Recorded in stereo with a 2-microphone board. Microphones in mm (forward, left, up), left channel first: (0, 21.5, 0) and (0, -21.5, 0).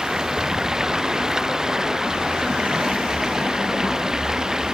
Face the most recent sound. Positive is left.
turn(degrees=-15)  # may be behind; listen again after turning